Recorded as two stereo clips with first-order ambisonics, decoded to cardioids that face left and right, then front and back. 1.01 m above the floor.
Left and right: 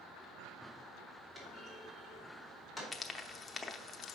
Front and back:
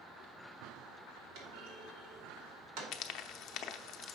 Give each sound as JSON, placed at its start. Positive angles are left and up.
{"t": 1.4, "sound": "a clunk", "azimuth_deg": -170, "distance_m": 2.5}
{"t": 2.9, "sound": "frying", "azimuth_deg": 20, "distance_m": 0.6}